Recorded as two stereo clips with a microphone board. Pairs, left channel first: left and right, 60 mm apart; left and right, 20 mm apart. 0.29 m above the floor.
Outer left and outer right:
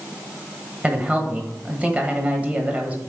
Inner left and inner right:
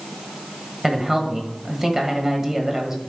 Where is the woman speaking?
25° right (ahead or behind), 1.4 m.